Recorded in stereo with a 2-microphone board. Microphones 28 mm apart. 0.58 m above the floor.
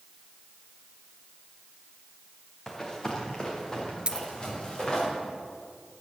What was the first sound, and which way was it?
Running footsteps, 15° left (ahead or behind).